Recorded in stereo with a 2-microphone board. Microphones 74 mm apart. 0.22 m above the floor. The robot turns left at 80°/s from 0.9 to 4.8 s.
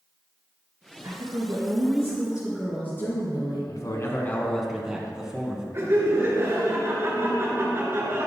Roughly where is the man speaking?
Left.